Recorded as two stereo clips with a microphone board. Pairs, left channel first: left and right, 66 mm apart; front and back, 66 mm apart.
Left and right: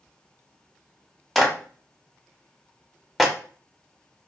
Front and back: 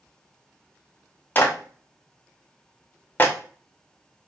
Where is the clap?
Straight ahead, 0.6 m.